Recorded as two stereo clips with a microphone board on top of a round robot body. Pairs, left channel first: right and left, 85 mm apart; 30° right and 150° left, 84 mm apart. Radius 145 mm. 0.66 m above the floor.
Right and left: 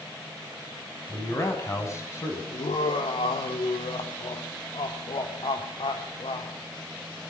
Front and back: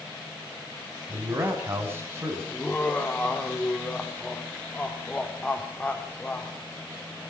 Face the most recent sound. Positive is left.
turn(degrees=-105)